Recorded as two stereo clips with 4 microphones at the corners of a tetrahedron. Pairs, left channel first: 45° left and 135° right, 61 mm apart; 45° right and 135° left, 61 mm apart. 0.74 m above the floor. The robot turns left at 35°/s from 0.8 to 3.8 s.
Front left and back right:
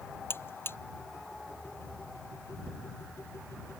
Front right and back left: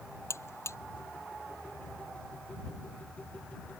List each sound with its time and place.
0.3 s a buzzer: 5° right